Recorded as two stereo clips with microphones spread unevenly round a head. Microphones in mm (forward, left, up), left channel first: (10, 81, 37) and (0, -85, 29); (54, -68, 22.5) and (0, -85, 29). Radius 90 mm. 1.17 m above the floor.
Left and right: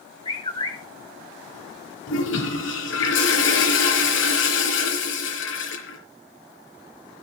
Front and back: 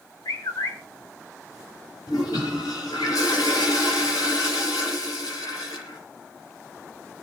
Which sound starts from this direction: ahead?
A bird, at 0.2 s.